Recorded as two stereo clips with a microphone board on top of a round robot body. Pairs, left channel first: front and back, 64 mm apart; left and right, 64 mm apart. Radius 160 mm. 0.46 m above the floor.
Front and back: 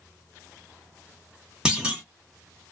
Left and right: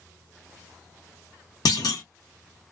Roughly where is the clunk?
Left.